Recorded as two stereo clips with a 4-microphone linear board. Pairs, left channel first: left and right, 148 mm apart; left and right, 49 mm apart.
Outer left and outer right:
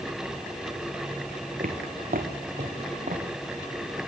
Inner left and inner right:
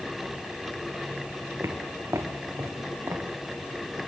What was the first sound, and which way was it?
Footsteps, 75° right (ahead or behind).